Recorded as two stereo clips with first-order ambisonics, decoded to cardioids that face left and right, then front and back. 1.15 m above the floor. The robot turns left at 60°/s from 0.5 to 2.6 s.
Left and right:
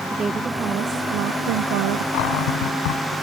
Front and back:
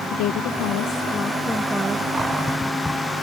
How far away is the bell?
I don't hear a bell.